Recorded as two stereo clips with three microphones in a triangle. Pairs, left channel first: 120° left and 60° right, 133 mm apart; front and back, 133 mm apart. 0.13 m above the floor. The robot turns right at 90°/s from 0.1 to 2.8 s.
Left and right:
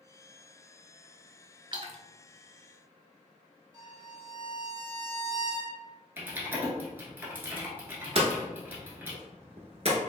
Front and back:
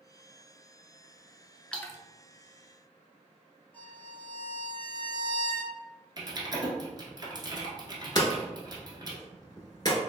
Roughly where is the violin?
Ahead right.